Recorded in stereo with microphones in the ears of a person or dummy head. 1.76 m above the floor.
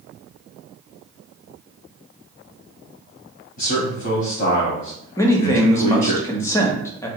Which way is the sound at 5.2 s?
15° left (ahead or behind).